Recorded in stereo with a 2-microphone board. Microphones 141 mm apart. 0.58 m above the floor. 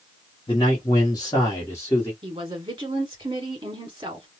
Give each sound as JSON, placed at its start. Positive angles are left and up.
{"t": 0.5, "sound": "a man speaking", "side_deg": 35, "distance_m": 1.0}
{"t": 2.2, "sound": "a woman speaking", "side_deg": -35, "distance_m": 1.5}